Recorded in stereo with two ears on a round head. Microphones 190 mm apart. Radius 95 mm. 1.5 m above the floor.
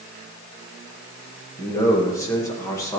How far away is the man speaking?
About 1.8 m.